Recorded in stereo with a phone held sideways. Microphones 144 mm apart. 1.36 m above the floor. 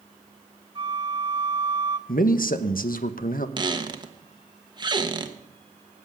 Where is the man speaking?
75° left (ahead or behind), 1.0 m.